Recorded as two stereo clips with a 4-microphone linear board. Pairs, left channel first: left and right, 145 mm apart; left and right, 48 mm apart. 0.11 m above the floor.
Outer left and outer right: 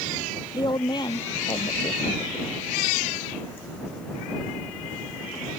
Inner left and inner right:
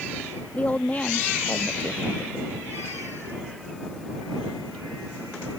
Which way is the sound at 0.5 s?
30° left (ahead or behind).